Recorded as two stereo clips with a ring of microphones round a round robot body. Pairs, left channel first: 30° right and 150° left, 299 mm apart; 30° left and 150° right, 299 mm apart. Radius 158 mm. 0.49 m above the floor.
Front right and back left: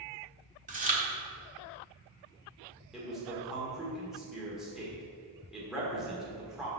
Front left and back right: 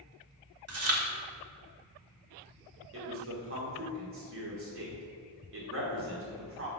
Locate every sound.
0.7 s chewing: 155° right, 1.5 m
2.9 s a man speaking: 120° right, 1.8 m